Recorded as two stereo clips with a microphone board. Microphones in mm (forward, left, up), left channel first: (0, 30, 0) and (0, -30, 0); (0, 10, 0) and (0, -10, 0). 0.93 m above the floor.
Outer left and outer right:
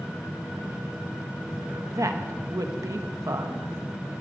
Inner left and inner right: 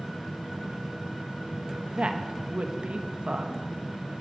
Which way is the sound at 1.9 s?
70° right (ahead or behind).